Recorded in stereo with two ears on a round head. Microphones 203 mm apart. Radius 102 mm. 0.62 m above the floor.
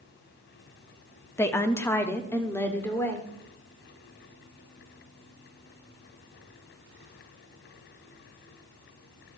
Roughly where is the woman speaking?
Centre.